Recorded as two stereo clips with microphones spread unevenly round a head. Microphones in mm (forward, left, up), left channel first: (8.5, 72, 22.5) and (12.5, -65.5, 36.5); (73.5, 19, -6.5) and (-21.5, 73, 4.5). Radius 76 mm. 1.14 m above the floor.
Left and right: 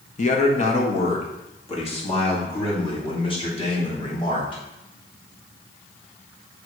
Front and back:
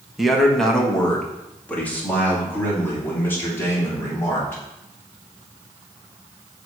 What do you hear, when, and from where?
0.2 s a man speaking: 60° left, 1.4 m; by 4.6 s 40° left, 4 m